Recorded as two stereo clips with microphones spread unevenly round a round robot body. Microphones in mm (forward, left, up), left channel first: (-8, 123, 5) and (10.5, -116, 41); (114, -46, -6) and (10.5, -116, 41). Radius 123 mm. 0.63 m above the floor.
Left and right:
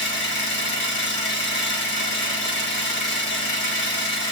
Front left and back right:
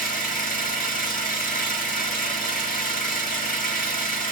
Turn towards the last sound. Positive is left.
turn(degrees=50)